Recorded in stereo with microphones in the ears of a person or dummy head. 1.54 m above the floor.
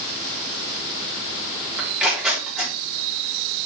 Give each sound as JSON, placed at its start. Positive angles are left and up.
{"t": 1.8, "sound": "tearing paper", "side_deg": -5, "distance_m": 3.5}